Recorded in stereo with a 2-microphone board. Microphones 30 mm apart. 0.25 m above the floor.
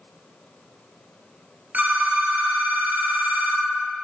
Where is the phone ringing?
65° right (ahead or behind), 1.3 m.